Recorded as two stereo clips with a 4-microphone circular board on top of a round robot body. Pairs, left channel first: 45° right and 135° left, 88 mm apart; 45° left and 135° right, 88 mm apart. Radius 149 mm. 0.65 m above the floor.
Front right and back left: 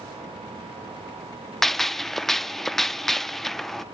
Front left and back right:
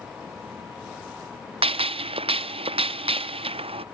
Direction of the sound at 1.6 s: 130° right.